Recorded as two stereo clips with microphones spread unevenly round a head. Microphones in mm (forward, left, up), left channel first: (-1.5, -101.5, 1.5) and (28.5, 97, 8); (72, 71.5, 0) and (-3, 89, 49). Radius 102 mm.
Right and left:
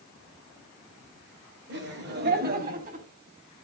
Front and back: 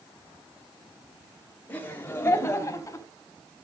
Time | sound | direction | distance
1.7 | laughter | 50° left | 3 m